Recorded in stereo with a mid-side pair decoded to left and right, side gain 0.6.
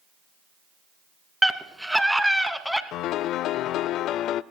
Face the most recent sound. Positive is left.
turn(degrees=60)